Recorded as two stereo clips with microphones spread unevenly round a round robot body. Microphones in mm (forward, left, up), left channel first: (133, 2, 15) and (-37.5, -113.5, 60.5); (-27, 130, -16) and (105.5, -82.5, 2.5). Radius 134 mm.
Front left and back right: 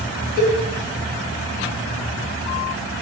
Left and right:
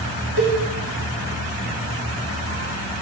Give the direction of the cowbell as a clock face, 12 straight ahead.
1 o'clock.